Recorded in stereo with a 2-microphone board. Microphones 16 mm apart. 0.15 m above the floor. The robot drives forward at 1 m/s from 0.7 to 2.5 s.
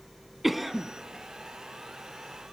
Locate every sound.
0.4 s a cough: 15° right (ahead or behind), 1.0 m